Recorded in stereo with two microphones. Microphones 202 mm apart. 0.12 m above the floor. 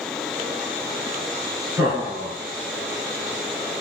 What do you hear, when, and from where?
1.8 s laughter: 15° right (ahead or behind), 1.3 m